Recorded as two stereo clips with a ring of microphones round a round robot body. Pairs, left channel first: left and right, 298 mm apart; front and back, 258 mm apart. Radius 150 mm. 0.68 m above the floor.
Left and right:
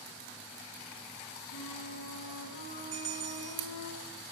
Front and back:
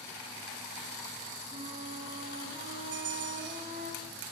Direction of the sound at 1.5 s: 115° left.